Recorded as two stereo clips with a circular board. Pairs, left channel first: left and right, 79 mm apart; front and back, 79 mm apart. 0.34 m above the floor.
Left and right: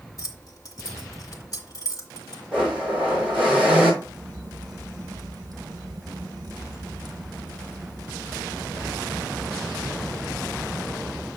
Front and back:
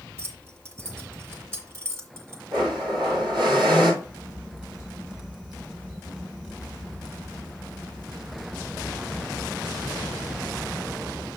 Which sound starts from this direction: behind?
A blender, at 2.5 s.